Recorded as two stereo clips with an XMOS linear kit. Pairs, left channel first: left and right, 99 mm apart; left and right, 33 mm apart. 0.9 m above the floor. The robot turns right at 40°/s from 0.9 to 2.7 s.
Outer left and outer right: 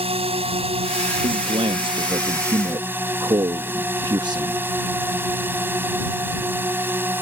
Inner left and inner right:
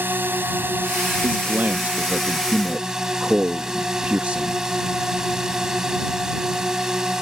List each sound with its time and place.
0.0 s a drone: 95° right; by 7.2 s 20° right
1.2 s a man speaking: 105° right; by 4.6 s 50° right